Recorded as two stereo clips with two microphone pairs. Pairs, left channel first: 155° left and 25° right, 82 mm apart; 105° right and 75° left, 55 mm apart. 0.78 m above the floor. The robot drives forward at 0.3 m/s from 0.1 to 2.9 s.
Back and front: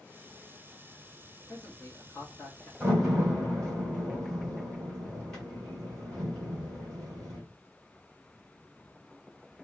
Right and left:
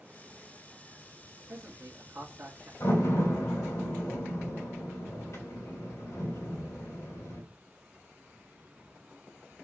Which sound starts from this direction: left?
A man speaking, at 1.5 s.